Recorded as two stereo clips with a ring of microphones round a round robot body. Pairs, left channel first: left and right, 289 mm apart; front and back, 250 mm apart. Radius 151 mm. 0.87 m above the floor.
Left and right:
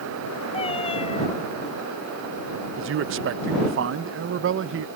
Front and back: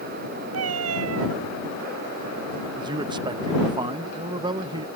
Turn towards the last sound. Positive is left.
turn(degrees=-115)